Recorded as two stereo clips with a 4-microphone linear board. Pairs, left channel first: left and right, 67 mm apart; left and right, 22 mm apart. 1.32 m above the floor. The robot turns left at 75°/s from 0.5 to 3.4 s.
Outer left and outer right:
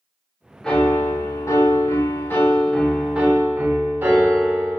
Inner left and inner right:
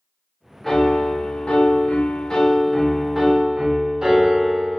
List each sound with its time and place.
0.6 s a piano: 165° left, 0.6 m; by 4.8 s 40° right, 0.6 m